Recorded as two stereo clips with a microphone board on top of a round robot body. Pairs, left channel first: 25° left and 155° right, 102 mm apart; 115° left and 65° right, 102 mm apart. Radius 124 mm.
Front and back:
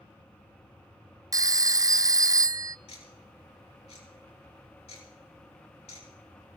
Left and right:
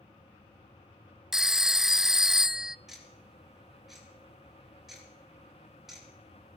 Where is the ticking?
20° left, 7 m.